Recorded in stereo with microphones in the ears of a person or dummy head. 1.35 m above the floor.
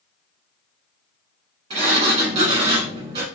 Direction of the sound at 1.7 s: 35° right (ahead or behind).